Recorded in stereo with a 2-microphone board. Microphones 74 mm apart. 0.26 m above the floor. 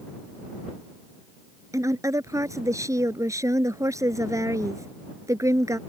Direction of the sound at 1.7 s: 45° right (ahead or behind).